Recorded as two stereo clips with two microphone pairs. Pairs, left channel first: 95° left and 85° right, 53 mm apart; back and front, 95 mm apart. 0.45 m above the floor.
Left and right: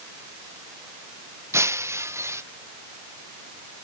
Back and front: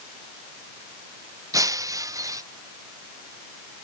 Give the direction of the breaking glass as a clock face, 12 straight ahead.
2 o'clock.